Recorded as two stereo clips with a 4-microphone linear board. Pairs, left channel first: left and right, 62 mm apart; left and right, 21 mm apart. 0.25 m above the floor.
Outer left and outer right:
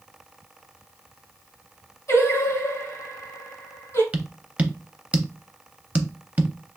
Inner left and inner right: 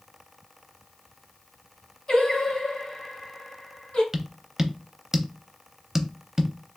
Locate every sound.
2.1 s singing: 50° left (ahead or behind), 2.5 m
4.1 s tapping: 25° right (ahead or behind), 0.5 m